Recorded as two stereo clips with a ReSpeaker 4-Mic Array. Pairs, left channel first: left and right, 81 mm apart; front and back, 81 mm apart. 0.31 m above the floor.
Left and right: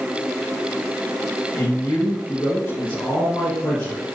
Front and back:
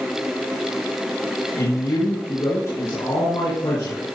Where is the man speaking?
30° left, 4.5 m.